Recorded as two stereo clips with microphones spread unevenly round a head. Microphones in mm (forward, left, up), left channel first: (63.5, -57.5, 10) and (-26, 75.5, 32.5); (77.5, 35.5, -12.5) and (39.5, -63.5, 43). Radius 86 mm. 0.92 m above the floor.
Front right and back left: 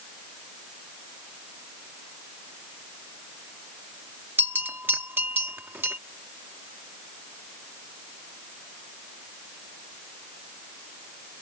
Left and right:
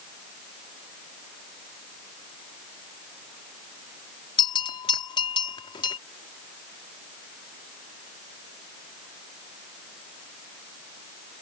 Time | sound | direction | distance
4.4 | a bell | 45° left | ?